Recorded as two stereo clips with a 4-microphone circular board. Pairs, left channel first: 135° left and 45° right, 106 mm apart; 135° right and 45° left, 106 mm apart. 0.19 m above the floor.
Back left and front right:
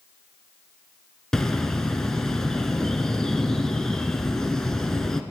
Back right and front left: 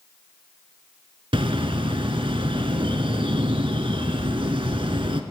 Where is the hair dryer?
No hair dryer in this recording.